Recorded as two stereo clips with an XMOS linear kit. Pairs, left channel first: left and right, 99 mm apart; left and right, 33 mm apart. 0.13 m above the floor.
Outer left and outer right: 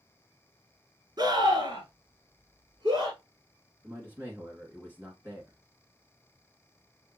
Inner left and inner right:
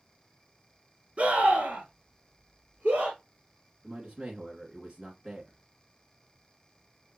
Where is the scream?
45° right (ahead or behind), 1.6 m; by 3.2 s 50° right (ahead or behind), 2.5 m.